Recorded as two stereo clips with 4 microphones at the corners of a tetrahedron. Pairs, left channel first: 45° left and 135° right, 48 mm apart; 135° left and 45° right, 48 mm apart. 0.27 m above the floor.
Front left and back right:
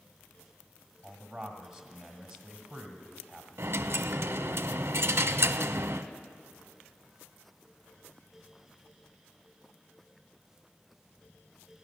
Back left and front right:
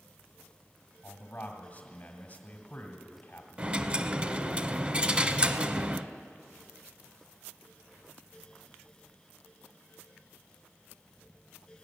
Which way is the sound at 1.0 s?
140° left.